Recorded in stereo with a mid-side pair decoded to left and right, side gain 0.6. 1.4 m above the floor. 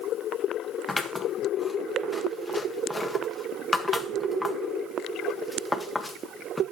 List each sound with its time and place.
0.9 s scissors: 10° left, 1.6 m